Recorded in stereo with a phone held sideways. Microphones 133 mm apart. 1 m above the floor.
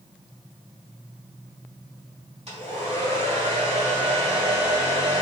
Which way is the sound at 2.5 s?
45° right (ahead or behind).